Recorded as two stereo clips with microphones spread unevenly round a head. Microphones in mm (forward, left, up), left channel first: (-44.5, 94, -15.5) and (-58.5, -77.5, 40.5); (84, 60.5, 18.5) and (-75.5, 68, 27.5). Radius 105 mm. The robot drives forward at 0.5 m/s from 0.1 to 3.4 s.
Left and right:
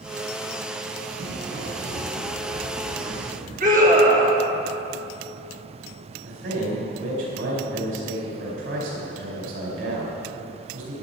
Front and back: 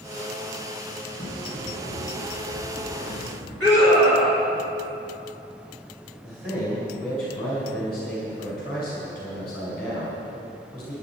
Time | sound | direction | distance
1.2 | footsteps | 100° right | 3.5 m
3.6 | a scream | 140° right | 3.5 m
6.2 | a man speaking | 90° right | 4.5 m